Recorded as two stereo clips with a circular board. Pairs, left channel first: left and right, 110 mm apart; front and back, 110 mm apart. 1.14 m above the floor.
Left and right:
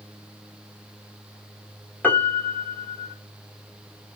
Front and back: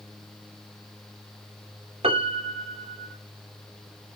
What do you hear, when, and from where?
2.0 s a piano: 165° left, 1.8 m